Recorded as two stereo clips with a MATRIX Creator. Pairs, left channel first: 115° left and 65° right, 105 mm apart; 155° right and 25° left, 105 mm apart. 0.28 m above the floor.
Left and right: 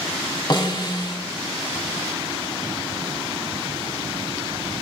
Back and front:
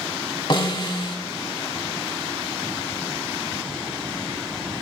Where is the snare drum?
160° left, 0.7 m.